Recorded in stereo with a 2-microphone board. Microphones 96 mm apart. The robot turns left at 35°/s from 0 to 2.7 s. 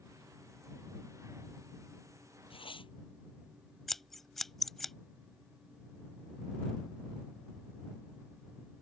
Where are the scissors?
5° left (ahead or behind).